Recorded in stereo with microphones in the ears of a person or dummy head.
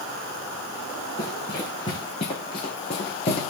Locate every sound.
1.2 s running footsteps: 15° left (ahead or behind), 6 m; by 3.5 s 25° left (ahead or behind), 4 m